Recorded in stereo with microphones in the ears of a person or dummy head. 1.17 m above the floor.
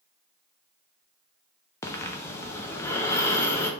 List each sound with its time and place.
1.8 s breathing: 10° left (ahead or behind), 0.5 m